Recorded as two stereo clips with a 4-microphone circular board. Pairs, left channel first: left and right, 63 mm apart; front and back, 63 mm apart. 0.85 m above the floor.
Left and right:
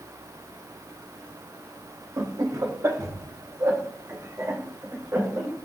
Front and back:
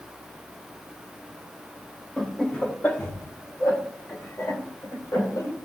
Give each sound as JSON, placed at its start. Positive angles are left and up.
{"t": 2.2, "sound": "laughter", "azimuth_deg": -80, "distance_m": 1.3}